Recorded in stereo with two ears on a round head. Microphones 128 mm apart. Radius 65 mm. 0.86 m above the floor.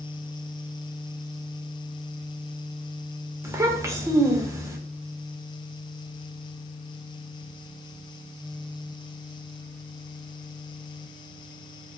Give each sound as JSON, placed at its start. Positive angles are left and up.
{"t": 3.4, "sound": "a child speaking", "side_deg": -20, "distance_m": 0.5}